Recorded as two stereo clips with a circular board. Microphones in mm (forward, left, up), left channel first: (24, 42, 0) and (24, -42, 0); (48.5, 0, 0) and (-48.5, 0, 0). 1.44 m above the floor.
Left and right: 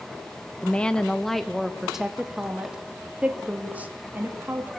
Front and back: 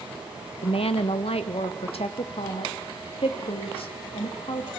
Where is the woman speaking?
15° left, 1.5 m; by 4.7 s 20° right, 3.5 m.